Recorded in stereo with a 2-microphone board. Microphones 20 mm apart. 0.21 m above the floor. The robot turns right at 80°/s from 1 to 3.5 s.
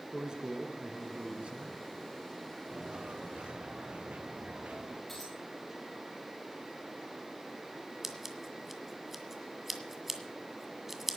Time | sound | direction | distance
0.1 | a man speaking | 135° right | 3 m
2.7 | footsteps | 30° right (ahead or behind) | 2.0 m
5.1 | a dropped coin | 10° left (ahead or behind) | 8.5 m
8.0 | scissors | 10° right (ahead or behind) | 1.9 m